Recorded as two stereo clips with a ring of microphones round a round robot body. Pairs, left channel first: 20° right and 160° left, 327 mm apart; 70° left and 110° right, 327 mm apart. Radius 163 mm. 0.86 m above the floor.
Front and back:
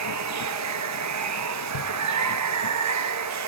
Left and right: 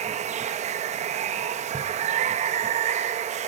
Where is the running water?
Straight behind, 0.9 m.